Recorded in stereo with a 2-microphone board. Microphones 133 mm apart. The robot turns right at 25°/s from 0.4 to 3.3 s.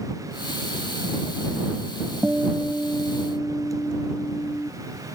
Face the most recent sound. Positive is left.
turn(degrees=15)  # may be behind; listen again after turning